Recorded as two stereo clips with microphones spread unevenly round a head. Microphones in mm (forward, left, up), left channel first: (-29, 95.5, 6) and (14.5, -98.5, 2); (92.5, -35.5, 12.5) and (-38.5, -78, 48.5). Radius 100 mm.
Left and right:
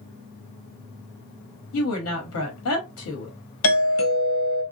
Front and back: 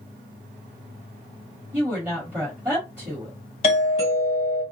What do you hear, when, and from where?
1.7 s a woman speaking: 115° left, 1.0 m
3.6 s a doorbell: 80° left, 1.2 m